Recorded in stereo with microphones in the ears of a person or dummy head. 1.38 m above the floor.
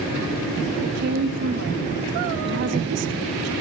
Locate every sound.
0.8 s a woman speaking: 65° right (ahead or behind), 2 m